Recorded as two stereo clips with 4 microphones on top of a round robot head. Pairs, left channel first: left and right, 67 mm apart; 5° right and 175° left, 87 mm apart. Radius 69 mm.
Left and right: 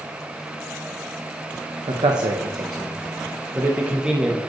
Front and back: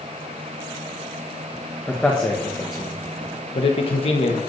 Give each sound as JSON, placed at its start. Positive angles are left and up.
{"t": 1.9, "sound": "a man speaking", "azimuth_deg": -85, "distance_m": 1.2}